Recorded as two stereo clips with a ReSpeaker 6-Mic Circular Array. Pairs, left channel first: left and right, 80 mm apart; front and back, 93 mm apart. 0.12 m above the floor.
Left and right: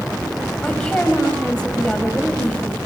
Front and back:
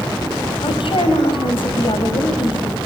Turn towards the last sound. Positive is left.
turn(degrees=10)